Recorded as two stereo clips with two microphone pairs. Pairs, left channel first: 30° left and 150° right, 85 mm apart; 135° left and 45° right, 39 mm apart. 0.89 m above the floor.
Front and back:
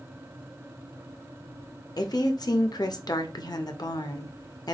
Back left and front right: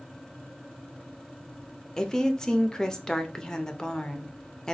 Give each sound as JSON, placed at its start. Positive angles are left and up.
{"t": 2.0, "sound": "a woman speaking", "azimuth_deg": 60, "distance_m": 0.6}